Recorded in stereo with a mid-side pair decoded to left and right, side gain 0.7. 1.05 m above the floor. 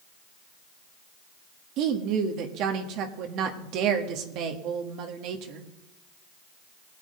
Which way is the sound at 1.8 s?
60° right.